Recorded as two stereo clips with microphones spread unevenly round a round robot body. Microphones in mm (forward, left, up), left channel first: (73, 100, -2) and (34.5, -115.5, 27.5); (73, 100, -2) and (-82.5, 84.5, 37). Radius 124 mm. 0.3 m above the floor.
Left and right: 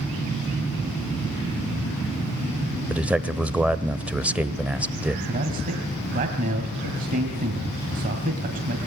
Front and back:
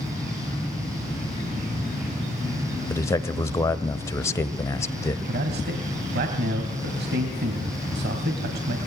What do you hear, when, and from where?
2.9 s a man speaking: 10° right, 1.1 m
5.3 s a man speaking: 155° right, 2.5 m